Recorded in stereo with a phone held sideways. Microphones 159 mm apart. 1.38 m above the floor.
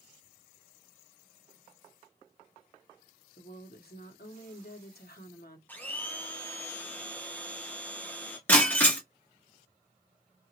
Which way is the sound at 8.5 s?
10° left (ahead or behind).